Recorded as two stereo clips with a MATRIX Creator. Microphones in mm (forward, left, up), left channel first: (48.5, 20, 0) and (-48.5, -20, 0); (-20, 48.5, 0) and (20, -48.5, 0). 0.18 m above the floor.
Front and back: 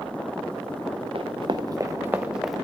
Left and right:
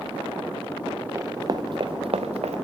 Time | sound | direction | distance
1.1 | running footsteps | 130° right | 0.9 m